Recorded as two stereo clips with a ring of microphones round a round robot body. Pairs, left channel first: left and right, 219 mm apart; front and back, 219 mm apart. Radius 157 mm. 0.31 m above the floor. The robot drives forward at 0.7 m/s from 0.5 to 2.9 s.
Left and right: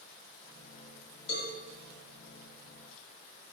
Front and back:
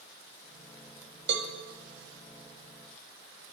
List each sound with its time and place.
1.3 s a cowbell: 135° left, 0.6 m; by 1.5 s 145° left, 0.7 m